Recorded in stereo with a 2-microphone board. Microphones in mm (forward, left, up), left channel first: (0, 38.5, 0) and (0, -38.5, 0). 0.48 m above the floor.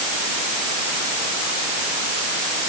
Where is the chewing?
No chewing in this recording.